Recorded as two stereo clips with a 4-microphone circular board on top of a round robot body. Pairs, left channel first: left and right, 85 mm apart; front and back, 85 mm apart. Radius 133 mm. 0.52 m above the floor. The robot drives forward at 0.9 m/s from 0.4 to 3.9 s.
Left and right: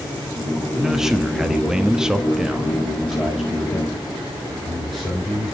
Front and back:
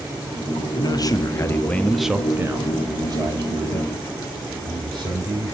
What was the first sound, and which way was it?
A man speaking, 5° right.